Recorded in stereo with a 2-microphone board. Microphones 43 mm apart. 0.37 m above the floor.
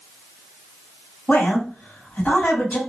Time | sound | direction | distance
1.3 | a woman speaking | 35° left (ahead or behind) | 1.9 m